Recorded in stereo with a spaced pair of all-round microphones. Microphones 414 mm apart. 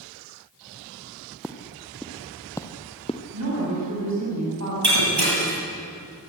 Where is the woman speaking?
40° right (ahead or behind), 8 m.